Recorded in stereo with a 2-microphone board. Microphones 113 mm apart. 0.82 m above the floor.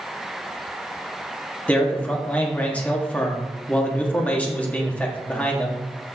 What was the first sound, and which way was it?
A man speaking, 15° left (ahead or behind).